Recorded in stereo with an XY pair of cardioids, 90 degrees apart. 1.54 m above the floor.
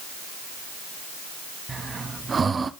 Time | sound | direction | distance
1.7 | breathing | 40° right | 0.7 m